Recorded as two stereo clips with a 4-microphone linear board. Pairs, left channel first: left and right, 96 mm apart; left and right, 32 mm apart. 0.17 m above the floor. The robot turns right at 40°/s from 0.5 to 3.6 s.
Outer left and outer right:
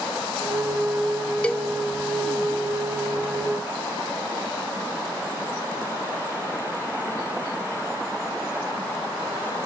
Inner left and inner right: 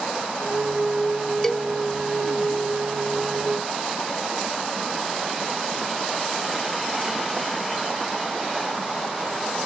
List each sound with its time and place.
1.4 s a cowbell: 15° left (ahead or behind), 0.7 m; by 1.7 s 5° left (ahead or behind), 0.7 m